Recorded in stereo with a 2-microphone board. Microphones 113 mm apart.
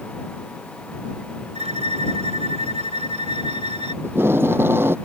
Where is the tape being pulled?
20° right (ahead or behind).